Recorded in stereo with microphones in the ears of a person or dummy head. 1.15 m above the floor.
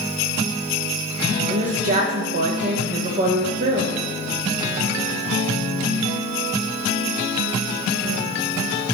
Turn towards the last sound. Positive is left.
turn(degrees=-45)  # may be behind; listen again after turning